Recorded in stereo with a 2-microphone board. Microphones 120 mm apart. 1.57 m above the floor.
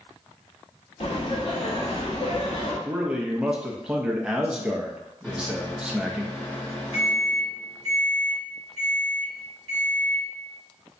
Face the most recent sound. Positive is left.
turn(degrees=15)  # may be behind; listen again after turning